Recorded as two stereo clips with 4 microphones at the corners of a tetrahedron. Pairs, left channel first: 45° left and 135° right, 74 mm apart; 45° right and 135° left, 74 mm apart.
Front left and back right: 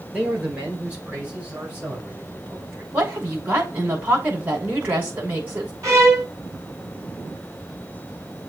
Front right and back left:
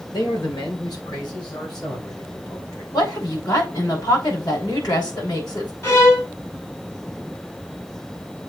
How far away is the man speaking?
About 4 m.